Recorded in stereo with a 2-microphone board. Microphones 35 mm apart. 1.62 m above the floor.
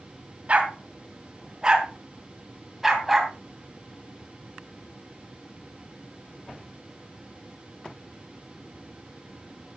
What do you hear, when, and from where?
0.5 s a dog barking: 35° right (ahead or behind), 2.5 m; by 3.3 s centre (ahead or behind), 3 m